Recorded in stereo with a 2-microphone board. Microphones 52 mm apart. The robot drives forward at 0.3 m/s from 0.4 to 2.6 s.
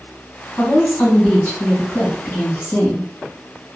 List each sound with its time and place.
0.6 s a woman speaking: 45° left (ahead or behind), 2 m; by 3.1 s 35° left (ahead or behind), 2.5 m